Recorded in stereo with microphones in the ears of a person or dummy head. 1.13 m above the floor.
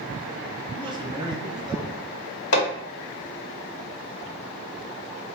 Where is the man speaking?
20° right (ahead or behind), 0.6 m.